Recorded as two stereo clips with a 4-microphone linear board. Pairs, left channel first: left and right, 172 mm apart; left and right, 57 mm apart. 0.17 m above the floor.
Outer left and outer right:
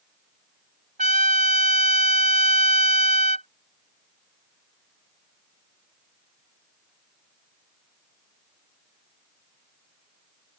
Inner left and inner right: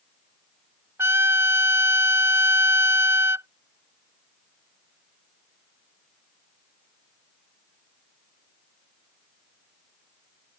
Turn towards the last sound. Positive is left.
turn(degrees=-50)  # may be behind; listen again after turning